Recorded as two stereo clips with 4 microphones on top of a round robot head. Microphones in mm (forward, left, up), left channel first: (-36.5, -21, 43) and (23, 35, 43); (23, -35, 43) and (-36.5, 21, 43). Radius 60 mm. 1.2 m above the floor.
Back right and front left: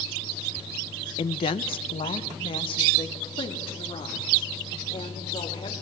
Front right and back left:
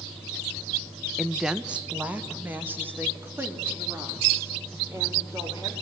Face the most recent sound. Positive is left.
turn(degrees=-160)